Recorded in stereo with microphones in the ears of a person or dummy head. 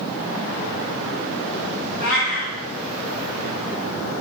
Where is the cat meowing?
40° left (ahead or behind), 2 m.